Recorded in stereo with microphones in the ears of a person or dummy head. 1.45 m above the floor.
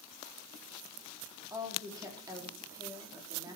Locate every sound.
1.5 s a woman speaking: 10° right (ahead or behind), 4 m